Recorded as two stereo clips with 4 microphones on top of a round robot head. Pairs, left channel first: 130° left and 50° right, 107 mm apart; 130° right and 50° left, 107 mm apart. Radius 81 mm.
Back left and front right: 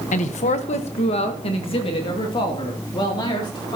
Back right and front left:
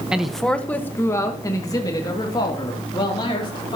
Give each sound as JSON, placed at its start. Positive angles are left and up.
{"t": 0.1, "sound": "a man speaking", "azimuth_deg": 130, "distance_m": 1.2}